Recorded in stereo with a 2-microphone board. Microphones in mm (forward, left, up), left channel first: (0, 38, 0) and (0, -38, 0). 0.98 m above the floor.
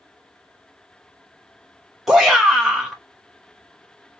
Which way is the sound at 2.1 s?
5° right (ahead or behind).